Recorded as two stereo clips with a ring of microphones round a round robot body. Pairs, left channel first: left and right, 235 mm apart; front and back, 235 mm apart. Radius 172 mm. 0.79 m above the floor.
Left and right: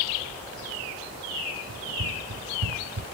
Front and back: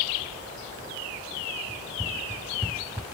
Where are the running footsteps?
90° right.